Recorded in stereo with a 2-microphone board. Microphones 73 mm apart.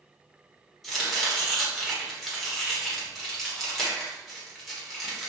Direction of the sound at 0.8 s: Centre (ahead or behind).